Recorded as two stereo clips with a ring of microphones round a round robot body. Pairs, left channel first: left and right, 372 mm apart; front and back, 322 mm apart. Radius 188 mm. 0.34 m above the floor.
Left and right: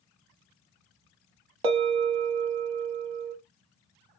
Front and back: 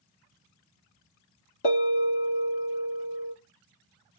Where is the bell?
65° right, 0.7 m.